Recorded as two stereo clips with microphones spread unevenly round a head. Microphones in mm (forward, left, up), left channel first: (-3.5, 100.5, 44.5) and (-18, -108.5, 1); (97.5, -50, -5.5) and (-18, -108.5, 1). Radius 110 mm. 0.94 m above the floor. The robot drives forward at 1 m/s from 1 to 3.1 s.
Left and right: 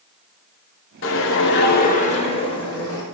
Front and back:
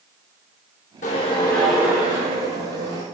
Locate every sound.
1.0 s a whoosh: 70° left, 0.8 m; by 3.0 s 160° left, 1.9 m